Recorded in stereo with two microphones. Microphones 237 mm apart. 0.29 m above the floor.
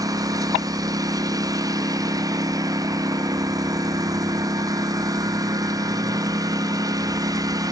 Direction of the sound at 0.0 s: 15° right (ahead or behind).